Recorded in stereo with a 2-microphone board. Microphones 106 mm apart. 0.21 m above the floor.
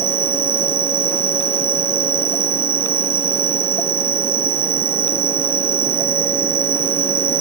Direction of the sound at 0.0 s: 65° left (ahead or behind).